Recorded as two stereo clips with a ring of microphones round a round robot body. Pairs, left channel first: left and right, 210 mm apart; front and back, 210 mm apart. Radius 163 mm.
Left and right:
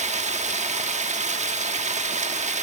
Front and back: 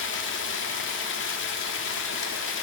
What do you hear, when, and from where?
0.0 s running water: 30° right, 1.3 m